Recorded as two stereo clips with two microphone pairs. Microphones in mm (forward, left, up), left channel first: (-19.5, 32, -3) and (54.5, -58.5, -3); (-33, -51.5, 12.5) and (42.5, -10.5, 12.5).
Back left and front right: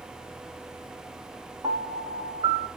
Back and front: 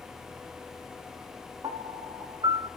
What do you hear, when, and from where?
1.6 s a piano: straight ahead, 5 m